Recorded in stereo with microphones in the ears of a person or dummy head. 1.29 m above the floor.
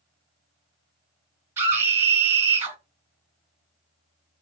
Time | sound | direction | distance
1.6 | a scream | 15° right (ahead or behind) | 1.0 m